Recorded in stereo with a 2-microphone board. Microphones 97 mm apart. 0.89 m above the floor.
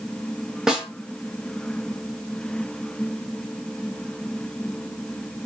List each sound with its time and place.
0.7 s a snare drum: 5° right (ahead or behind), 0.7 m